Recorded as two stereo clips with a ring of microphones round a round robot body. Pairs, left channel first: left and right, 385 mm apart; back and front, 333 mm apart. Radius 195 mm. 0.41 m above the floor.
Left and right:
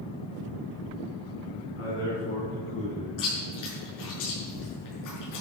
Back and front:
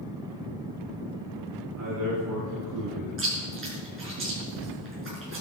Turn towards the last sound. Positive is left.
turn(degrees=50)